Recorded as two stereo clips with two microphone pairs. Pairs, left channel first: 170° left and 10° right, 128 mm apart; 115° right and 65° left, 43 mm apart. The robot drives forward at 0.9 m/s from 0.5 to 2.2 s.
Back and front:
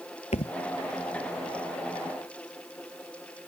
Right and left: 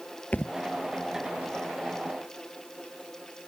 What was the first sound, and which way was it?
A thud, 165° right.